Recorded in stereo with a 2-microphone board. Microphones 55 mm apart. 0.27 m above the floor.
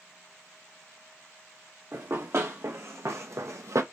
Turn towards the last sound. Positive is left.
turn(degrees=-65)  # may be behind; listen again after turning